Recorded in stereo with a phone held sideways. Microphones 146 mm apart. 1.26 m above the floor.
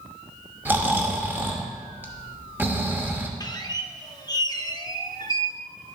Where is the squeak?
25° left (ahead or behind), 0.7 m.